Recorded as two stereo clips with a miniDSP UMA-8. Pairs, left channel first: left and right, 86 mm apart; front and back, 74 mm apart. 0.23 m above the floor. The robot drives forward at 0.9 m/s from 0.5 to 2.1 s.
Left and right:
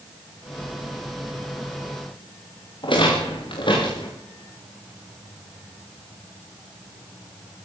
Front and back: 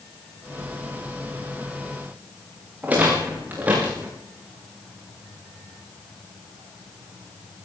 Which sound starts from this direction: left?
A rattle, at 2.8 s.